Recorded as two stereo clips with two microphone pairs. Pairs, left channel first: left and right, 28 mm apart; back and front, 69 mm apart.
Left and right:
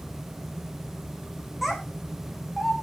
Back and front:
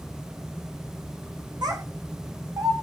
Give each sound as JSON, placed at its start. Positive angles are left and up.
{"t": 1.6, "sound": "a child speaking", "azimuth_deg": -5, "distance_m": 5.0}